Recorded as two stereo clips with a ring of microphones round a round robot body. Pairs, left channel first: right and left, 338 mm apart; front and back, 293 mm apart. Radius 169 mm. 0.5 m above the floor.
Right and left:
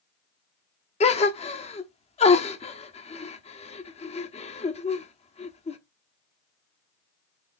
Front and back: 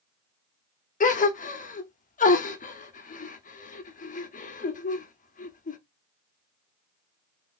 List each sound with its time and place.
1.0 s a gasp: 35° right, 0.9 m